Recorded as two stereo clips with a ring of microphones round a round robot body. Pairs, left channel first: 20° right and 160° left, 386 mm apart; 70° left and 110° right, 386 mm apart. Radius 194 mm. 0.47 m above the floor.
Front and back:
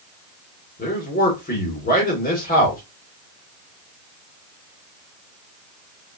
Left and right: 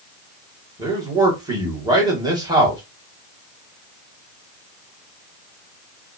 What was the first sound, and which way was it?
A man speaking, 50° right.